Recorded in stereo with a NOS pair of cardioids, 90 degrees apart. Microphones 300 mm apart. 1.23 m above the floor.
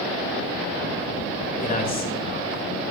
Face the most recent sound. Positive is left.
turn(degrees=35)